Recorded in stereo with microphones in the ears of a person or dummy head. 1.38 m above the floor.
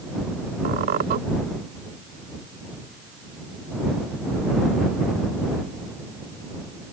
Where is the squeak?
55° right (ahead or behind).